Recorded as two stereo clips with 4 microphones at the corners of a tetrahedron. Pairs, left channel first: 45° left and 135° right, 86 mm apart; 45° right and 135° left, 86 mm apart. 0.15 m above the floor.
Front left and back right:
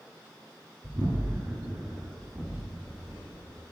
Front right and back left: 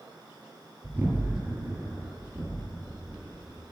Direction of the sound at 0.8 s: 160° right.